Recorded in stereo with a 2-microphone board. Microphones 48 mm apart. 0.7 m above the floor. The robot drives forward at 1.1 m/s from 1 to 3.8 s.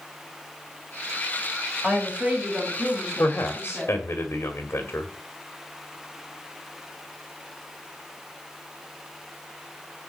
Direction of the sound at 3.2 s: 45° left (ahead or behind).